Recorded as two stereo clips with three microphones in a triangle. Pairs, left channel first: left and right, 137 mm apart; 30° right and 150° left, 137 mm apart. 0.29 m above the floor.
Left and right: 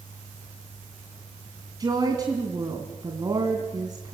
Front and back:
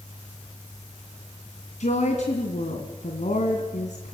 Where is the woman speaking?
30° right, 2 m.